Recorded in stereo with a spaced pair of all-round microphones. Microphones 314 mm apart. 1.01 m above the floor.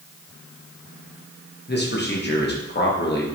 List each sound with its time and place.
1.7 s a man speaking: 35° left (ahead or behind), 1.0 m